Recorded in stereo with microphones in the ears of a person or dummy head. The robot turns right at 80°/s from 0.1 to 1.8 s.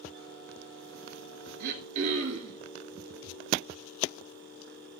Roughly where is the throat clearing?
Right.